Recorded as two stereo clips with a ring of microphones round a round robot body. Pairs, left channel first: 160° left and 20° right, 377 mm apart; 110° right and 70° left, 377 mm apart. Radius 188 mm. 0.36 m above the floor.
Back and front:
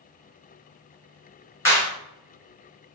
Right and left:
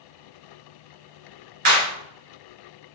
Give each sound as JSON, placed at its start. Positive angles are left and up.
{"t": 1.6, "sound": "a clap", "azimuth_deg": 75, "distance_m": 1.6}